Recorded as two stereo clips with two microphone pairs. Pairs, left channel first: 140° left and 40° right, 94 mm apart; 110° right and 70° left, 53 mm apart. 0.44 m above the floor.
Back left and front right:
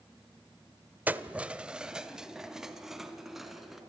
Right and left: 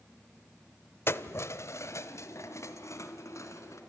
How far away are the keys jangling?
About 1.0 m.